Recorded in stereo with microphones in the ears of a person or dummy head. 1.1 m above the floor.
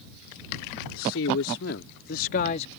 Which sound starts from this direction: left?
A man speaking, at 0.9 s.